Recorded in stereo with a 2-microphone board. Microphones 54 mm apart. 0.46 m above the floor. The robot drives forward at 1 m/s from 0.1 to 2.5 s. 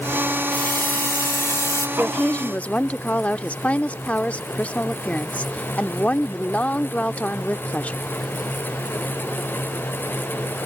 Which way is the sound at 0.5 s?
35° left (ahead or behind).